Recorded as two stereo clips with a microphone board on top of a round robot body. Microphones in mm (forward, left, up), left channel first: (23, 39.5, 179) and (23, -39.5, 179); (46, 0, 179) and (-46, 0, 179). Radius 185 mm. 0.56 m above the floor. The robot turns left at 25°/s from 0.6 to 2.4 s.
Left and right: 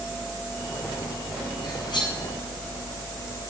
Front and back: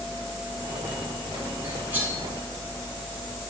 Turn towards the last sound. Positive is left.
turn(degrees=100)